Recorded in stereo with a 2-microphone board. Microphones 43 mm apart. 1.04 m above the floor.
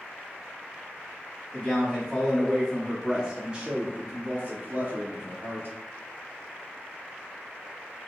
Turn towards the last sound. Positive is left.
turn(degrees=-50)  # may be behind; listen again after turning